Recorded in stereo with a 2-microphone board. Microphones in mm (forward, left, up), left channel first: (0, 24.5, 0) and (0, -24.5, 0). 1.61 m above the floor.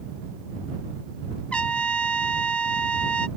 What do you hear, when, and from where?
1.5 s a trumpet: 25° left (ahead or behind)